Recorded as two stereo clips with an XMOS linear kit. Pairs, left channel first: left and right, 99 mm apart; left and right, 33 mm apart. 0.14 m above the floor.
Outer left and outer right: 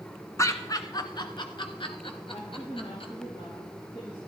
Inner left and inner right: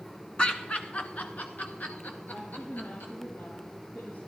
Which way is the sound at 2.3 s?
70° left (ahead or behind).